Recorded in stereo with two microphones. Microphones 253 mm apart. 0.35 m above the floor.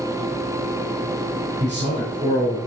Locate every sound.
1.6 s a man speaking: 30° right (ahead or behind), 4 m